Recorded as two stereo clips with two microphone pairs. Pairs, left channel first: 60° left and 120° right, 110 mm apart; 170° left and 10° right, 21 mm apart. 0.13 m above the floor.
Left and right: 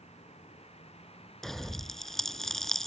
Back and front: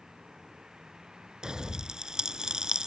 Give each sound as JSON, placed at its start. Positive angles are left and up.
{"t": 0.0, "sound": "a vehicle", "azimuth_deg": 40}
{"t": 1.4, "sound": "a pop", "azimuth_deg": -25}